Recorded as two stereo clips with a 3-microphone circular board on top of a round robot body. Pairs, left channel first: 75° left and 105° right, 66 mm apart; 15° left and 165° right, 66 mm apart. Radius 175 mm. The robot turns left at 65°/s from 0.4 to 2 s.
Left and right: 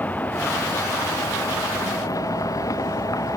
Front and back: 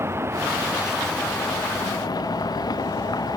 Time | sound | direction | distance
0.0 | a vehicle | 140° left | ?